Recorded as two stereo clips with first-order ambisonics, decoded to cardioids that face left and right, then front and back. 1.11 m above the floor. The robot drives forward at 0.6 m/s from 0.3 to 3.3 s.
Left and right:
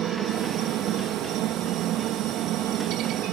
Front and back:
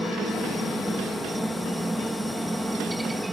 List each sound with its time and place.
0.0 s a helicopter: 95° right; by 3.3 s 100° right